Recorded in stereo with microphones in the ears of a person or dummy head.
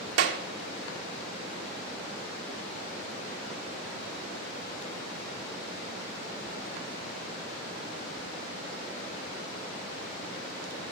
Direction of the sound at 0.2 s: 75° right (ahead or behind).